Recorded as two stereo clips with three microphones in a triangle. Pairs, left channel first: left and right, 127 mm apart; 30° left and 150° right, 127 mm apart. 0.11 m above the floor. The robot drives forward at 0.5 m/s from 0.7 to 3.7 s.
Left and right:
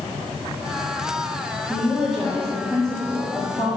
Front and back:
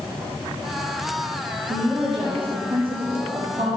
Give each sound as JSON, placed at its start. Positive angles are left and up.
{"t": 1.7, "sound": "a woman speaking", "azimuth_deg": 175, "distance_m": 3.0}